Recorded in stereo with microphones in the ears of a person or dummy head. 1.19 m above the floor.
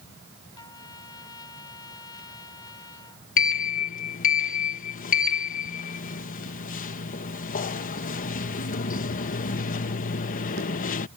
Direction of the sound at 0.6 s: 20° left (ahead or behind).